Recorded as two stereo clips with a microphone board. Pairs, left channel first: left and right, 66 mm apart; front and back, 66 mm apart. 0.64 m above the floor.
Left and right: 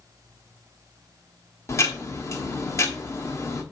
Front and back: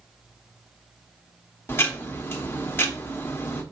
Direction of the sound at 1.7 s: 55° left.